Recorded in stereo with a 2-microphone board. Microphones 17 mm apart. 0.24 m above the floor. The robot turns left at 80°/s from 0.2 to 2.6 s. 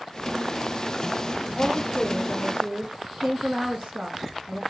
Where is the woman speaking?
10° right, 3 m; by 4.6 s 95° right, 3 m.